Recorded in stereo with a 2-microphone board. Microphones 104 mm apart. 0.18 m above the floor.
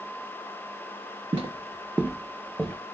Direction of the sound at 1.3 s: 55° right (ahead or behind).